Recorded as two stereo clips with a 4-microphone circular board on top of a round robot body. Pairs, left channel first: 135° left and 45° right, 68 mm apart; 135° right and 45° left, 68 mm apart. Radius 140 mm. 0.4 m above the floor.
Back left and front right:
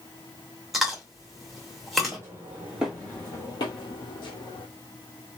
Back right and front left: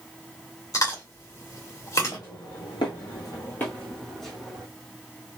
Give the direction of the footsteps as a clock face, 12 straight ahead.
3 o'clock.